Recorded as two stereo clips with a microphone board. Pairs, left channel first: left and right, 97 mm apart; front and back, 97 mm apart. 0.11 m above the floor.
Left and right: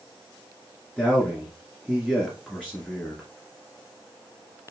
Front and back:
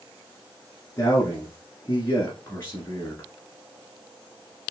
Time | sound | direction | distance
1.0 | a man speaking | 15° left | 1.5 m